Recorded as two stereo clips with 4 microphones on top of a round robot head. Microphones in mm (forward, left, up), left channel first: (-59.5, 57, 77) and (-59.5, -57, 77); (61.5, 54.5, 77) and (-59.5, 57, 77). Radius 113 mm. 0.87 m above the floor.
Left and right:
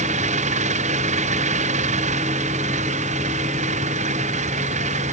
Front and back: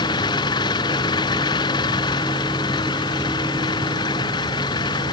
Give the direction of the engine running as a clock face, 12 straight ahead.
2 o'clock.